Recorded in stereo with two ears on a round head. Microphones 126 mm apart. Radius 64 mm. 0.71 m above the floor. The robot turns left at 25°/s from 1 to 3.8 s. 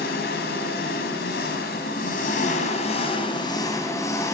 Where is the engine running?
90° left, 4 m; by 4.3 s 20° left, 4 m.